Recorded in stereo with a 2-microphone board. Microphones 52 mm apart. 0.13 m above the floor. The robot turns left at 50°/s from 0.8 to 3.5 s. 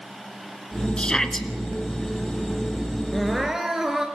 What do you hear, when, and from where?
1.0 s a shout: 20° left (ahead or behind), 1.5 m; by 1.5 s 5° left (ahead or behind), 1.5 m
3.1 s crying: 5° left (ahead or behind), 2.5 m; by 4.1 s 10° right (ahead or behind), 2.5 m